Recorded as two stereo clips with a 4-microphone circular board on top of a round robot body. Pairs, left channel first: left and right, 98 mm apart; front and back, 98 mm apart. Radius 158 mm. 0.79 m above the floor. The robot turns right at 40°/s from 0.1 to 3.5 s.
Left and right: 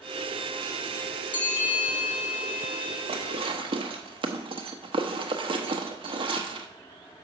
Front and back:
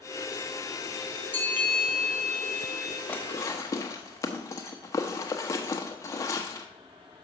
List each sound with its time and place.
1.3 s a bell: 70° left, 2 m; by 3.0 s 135° left, 2 m
3.1 s dishes clattering: 75° right, 0.9 m; by 6.7 s 60° right, 0.9 m